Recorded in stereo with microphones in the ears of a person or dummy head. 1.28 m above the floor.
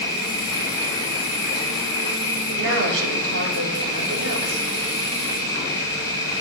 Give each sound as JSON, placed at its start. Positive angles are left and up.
{"t": 0.0, "sound": "an insect", "side_deg": 25, "distance_m": 5.0}
{"t": 2.5, "sound": "a woman speaking", "side_deg": -65, "distance_m": 3.5}